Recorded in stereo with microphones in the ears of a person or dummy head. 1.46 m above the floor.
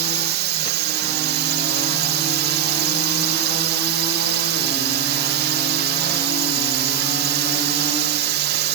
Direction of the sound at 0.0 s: 50° right (ahead or behind).